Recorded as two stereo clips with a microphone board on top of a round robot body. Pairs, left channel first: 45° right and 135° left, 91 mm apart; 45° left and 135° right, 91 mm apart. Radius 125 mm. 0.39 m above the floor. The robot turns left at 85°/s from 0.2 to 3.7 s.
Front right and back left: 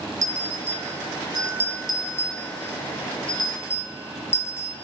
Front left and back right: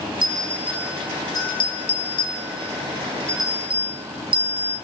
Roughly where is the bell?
Behind.